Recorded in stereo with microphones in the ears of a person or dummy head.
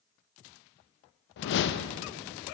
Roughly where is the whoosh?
Left.